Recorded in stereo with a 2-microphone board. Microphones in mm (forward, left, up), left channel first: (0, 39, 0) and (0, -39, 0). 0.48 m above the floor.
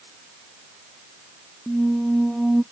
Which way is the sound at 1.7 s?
5° right (ahead or behind).